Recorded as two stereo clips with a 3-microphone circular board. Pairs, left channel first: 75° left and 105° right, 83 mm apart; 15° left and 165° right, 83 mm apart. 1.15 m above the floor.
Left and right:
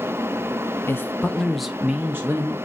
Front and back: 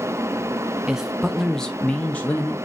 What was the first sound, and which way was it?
A man speaking, 115° left.